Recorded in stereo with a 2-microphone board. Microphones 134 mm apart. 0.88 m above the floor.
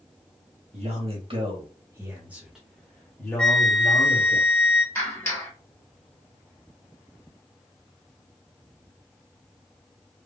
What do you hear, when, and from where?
0.7 s a man speaking: 50° right (ahead or behind), 1.2 m; by 4.4 s 25° left (ahead or behind), 1.9 m
3.4 s a flute: 10° left (ahead or behind), 1.4 m
5.0 s a clap: 15° left (ahead or behind), 1.4 m